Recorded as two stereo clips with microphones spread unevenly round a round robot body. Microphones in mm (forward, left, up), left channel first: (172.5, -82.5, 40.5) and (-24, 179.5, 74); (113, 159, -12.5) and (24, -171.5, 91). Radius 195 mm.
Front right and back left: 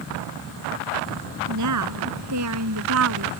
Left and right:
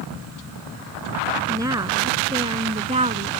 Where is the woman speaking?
175° left; by 3.3 s straight behind.